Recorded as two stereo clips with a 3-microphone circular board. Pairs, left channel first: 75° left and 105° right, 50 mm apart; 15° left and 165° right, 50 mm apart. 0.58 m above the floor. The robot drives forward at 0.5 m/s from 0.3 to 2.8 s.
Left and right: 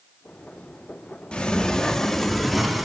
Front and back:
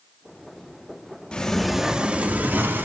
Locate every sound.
1.3 s a sliding door: 45° left, 0.5 m; by 2.9 s 170° left, 0.8 m